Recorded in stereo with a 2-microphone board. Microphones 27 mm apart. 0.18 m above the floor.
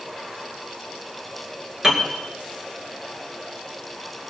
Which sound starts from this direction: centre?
A piano, at 1.8 s.